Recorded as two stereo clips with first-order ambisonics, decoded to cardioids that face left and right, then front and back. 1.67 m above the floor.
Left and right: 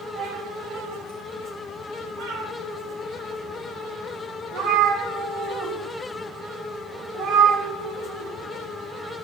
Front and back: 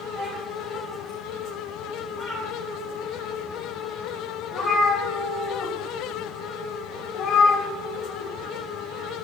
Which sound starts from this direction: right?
A cat meowing, at 0.1 s.